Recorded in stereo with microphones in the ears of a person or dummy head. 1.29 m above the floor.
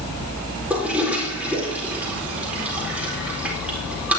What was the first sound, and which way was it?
A toilet flushing, 5° right (ahead or behind).